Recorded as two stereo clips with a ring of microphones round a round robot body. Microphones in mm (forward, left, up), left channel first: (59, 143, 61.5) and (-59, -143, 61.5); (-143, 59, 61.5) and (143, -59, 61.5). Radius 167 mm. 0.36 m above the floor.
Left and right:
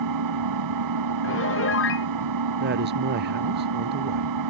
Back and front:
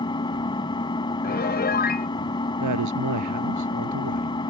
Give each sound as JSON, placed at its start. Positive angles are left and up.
{"t": 0.0, "sound": "an engine running", "azimuth_deg": -125}
{"t": 1.2, "sound": "a piano", "azimuth_deg": 105}
{"t": 2.6, "sound": "a woman speaking", "azimuth_deg": -55}